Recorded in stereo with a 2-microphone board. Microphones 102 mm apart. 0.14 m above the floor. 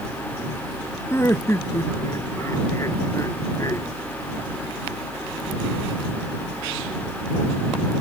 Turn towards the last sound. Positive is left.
turn(degrees=35)  # may be behind; listen again after turning